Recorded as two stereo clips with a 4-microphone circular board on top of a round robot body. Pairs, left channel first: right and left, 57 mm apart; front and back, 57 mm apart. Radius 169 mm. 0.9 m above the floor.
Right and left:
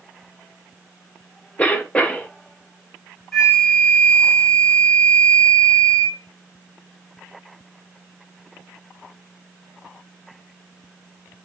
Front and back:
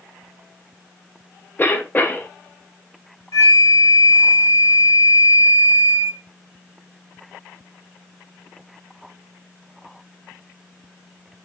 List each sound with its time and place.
1.6 s a cough: 35° right, 1.2 m
3.3 s a flute: 10° right, 0.7 m